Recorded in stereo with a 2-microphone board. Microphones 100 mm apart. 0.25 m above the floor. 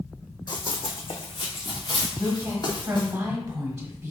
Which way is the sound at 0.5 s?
50° left (ahead or behind).